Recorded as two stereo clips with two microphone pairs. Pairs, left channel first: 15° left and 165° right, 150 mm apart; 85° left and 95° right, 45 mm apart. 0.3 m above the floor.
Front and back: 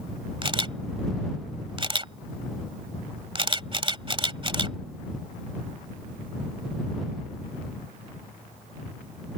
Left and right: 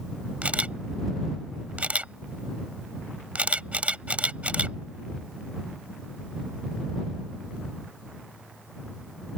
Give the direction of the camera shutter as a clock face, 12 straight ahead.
4 o'clock.